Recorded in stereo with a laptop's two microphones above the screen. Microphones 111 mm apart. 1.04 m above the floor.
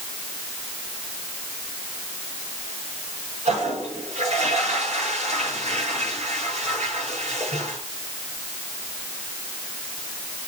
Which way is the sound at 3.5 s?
70° right (ahead or behind).